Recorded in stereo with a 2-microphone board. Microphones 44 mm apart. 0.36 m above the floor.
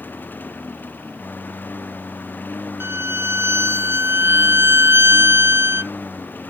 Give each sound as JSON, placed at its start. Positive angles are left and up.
{"t": 0.0, "sound": "a lawn mower", "side_deg": 45}
{"t": 2.8, "sound": "a violin", "side_deg": -80}